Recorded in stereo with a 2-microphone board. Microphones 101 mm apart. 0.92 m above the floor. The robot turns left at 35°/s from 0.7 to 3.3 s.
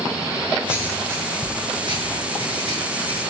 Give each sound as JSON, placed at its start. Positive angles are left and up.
{"t": 0.7, "sound": "writing", "side_deg": -15, "distance_m": 7.0}